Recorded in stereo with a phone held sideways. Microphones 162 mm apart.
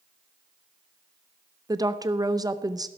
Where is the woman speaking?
25° right (ahead or behind), 0.7 m.